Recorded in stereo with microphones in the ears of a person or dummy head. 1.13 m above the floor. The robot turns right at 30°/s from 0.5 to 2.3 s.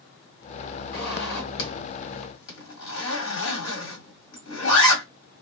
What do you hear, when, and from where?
0.9 s a zipper: 55° left (ahead or behind), 1.9 m; by 5.0 s 65° left (ahead or behind), 1.9 m